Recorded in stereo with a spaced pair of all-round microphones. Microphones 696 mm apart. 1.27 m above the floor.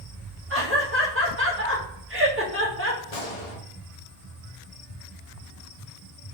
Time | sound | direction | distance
0.5 | laughter | 20° right (ahead or behind) | 0.6 m
3.1 | a gunshot | 65° left (ahead or behind) | 1.1 m